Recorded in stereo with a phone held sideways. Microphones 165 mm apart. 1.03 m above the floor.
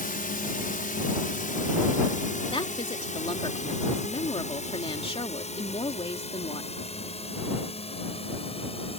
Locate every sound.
0.0 s a drone: 60° left (ahead or behind); by 9.0 s 35° left (ahead or behind)
2.5 s a woman speaking: 35° left (ahead or behind)